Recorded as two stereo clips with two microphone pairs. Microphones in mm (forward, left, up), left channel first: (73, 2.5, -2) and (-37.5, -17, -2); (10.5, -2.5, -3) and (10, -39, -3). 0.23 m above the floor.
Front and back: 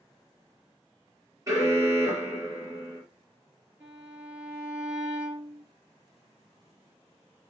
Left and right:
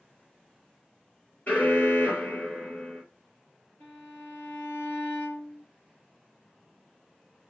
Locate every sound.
1.5 s an alarm: 130° left, 4.5 m
3.8 s a violin: 115° left, 3.5 m